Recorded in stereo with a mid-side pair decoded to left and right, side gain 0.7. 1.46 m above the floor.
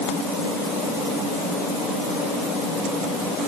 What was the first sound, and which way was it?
Only background noise.